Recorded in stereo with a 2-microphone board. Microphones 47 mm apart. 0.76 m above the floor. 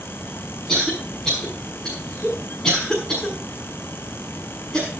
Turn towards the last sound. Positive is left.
turn(degrees=10)  # may be behind; listen again after turning